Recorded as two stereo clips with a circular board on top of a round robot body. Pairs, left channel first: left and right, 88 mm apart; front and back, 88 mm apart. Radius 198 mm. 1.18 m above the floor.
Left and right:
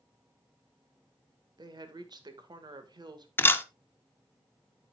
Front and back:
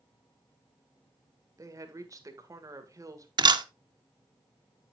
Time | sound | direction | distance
1.6 | a woman speaking | 125° right | 1.8 m
3.4 | a camera shutter | 155° left | 0.9 m